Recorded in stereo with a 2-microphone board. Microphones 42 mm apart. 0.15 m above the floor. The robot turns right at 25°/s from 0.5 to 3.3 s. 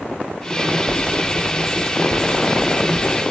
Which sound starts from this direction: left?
Writing, at 0.9 s.